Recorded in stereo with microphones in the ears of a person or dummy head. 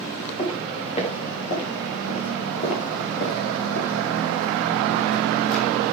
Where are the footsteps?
35° left (ahead or behind), 7.5 m; by 5.7 s 70° left (ahead or behind), 4 m.